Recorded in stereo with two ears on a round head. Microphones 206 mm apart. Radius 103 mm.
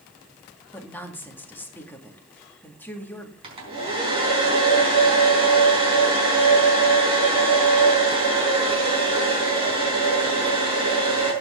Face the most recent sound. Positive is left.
turn(degrees=-25)  # may be behind; listen again after turning